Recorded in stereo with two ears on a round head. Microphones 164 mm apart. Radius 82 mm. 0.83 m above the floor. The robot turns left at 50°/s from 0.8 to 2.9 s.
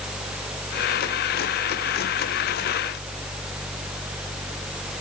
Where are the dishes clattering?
No dishes clattering in this recording.